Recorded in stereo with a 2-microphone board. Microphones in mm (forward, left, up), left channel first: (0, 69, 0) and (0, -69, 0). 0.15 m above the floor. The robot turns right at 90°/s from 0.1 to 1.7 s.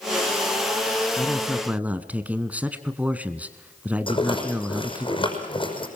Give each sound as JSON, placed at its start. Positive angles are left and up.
{"t": 1.2, "sound": "a man speaking", "azimuth_deg": 155, "distance_m": 1.4}
{"t": 4.1, "sound": "a rattle", "side_deg": 40, "distance_m": 5.5}